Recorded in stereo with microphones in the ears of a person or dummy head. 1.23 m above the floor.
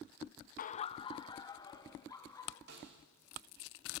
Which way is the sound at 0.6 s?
50° left (ahead or behind).